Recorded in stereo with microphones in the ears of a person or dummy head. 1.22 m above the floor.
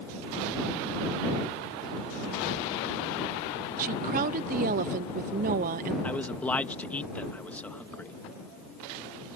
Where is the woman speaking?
45° right (ahead or behind).